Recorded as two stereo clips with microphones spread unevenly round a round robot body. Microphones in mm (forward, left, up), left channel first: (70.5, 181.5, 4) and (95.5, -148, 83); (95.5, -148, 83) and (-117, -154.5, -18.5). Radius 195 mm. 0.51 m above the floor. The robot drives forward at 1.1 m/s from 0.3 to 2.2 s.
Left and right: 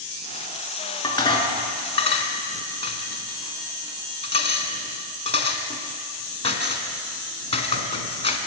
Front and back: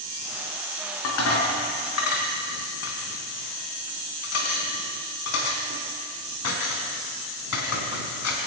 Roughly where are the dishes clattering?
Ahead.